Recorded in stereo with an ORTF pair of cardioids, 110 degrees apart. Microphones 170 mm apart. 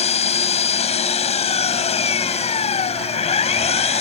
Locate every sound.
0.0 s an engine running: 35° left